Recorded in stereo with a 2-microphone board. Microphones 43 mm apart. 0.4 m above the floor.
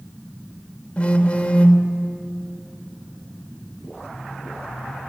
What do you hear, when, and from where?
1.0 s a phone buzzing: 25° left (ahead or behind), 1.7 m